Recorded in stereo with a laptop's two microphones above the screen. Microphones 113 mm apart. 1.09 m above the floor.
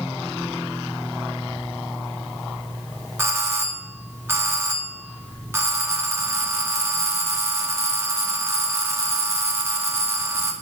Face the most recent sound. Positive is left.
turn(degrees=-20)  # may be behind; listen again after turning